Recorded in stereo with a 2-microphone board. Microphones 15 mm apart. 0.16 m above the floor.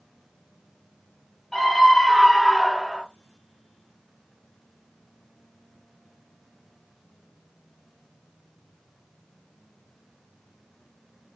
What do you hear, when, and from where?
1.5 s a scream: 20° left (ahead or behind), 3.5 m; by 3.0 s 5° right (ahead or behind), 3 m